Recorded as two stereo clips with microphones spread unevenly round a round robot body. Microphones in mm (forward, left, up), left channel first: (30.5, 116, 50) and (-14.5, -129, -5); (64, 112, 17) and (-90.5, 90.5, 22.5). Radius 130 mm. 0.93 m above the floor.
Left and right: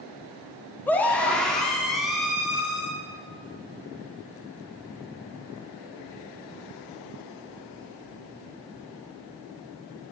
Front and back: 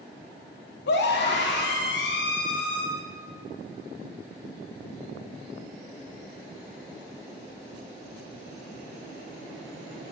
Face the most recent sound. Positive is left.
turn(degrees=-15)